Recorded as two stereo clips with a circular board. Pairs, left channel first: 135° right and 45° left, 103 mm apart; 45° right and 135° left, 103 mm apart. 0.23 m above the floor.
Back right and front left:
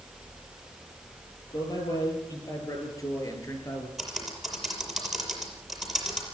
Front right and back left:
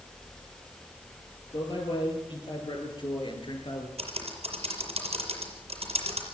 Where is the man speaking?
85° right, 6.5 m; by 3.9 s 75° right, 4.5 m.